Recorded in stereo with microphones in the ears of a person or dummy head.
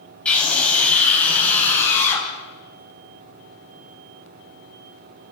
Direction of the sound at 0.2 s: 5° left (ahead or behind).